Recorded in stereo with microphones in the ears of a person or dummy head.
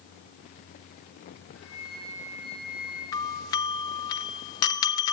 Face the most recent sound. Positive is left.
turn(degrees=20)  # may be behind; listen again after turning